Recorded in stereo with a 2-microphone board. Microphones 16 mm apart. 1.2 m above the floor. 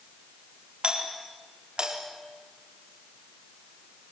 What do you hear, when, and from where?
0.8 s a doorbell: 75° right (ahead or behind), 4 m